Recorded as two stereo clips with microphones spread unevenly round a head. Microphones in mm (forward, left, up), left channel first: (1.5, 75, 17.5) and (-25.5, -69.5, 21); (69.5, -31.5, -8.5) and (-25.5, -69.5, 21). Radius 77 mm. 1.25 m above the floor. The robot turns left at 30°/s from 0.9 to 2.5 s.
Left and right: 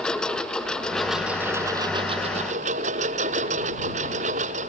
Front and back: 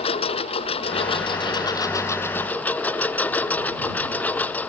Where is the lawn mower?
5° right; by 4.7 s 55° right.